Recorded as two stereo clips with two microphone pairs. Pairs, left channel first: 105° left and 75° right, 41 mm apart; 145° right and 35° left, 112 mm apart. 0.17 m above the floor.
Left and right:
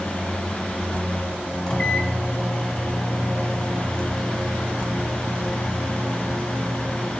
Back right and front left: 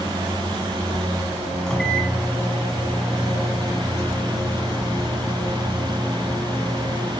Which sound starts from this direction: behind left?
A microwave, at 1.7 s.